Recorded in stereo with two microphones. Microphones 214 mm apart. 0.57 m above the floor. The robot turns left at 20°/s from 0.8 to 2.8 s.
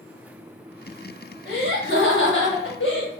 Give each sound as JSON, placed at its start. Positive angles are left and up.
{"t": 1.4, "sound": "laughter", "side_deg": 50, "distance_m": 1.5}